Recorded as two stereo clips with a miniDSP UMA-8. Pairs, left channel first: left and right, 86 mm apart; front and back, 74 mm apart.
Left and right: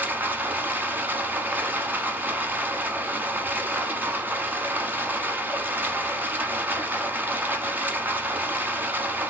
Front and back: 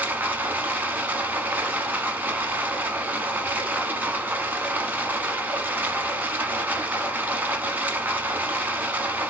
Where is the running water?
135° right, 0.9 m.